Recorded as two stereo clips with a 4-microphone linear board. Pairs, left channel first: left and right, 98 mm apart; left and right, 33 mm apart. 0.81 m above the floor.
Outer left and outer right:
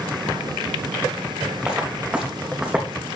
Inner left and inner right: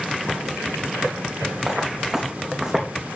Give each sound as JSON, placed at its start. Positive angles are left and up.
{"t": 1.7, "sound": "footsteps", "side_deg": -10, "distance_m": 4.5}